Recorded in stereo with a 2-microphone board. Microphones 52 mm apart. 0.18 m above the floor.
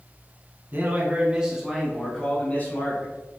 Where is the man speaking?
40° right (ahead or behind), 1.4 m; by 3.1 s 40° left (ahead or behind), 1.7 m.